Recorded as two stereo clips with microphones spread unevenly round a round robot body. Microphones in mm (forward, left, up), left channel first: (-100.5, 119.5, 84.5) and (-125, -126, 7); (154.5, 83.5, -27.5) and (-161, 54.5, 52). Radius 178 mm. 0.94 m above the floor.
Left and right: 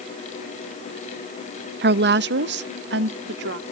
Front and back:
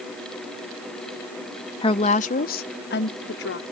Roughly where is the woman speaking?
Ahead right.